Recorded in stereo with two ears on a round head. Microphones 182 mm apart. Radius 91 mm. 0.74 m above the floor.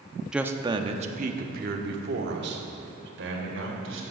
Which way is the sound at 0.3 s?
5° right (ahead or behind).